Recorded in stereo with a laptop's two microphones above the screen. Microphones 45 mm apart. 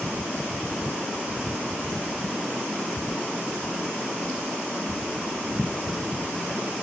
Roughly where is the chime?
I don't hear a chime.